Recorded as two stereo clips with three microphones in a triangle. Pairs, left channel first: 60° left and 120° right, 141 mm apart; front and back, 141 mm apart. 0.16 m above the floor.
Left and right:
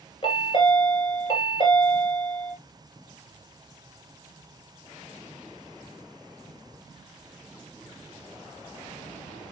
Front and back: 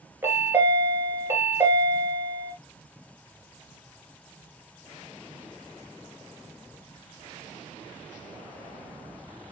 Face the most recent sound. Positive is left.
turn(degrees=110)